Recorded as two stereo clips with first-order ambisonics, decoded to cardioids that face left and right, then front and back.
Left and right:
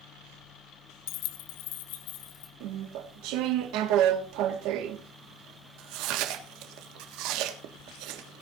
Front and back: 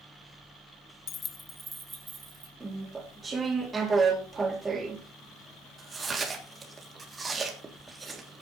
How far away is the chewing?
About 1.5 m.